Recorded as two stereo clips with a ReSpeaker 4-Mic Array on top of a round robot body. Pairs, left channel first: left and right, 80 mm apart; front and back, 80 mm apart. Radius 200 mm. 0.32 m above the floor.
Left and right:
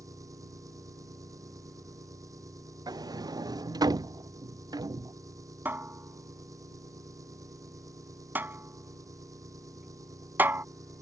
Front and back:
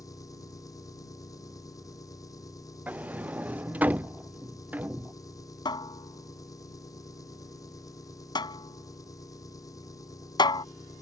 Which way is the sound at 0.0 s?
45° right.